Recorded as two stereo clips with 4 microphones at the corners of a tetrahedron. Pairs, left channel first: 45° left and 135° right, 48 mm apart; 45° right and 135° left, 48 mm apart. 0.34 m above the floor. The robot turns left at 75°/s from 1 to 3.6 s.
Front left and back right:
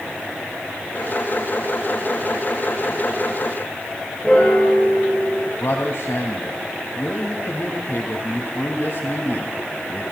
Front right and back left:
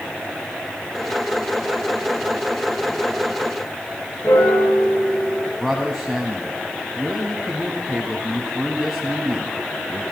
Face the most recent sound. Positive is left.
turn(degrees=50)